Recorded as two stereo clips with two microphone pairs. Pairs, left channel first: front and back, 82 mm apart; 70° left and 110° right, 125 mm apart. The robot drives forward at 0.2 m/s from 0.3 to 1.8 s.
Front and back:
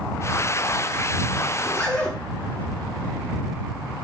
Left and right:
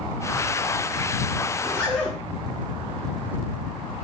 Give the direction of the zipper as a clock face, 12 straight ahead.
11 o'clock.